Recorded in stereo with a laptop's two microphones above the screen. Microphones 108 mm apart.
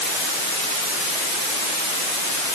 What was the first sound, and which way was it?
Only background noise.